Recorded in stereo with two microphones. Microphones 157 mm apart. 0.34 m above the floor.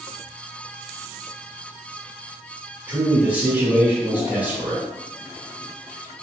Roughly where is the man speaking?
Centre.